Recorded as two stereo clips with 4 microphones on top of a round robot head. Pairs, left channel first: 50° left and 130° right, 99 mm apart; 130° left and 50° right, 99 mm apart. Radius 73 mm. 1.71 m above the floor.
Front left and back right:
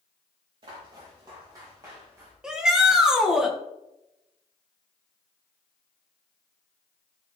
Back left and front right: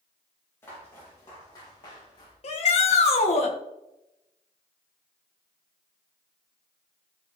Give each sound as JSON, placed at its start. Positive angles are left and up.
{"t": 0.6, "sound": "footsteps", "azimuth_deg": -165, "distance_m": 6.0}
{"t": 2.4, "sound": "a shout", "azimuth_deg": 150, "distance_m": 2.0}